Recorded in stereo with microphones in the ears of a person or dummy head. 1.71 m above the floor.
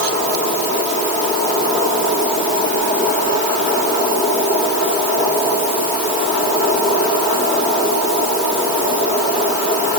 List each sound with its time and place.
Only background noise.